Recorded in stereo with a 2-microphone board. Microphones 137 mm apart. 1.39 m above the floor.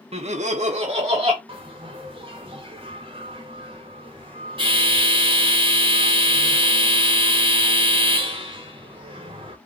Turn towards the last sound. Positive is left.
turn(degrees=-40)  # may be behind; listen again after turning